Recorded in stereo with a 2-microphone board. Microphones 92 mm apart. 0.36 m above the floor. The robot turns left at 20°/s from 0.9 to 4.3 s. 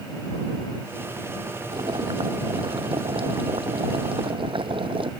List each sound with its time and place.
1.7 s boiling: 55° right; by 5.1 s 110° right